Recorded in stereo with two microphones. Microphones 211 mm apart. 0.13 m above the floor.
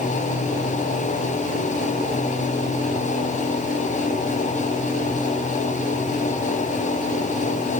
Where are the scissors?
I don't hear scissors.